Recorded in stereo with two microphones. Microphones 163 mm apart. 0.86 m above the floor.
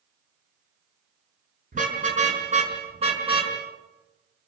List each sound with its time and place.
1.7 s a car horn: 50° right (ahead or behind), 6 m; by 3.5 s 30° right (ahead or behind), 5 m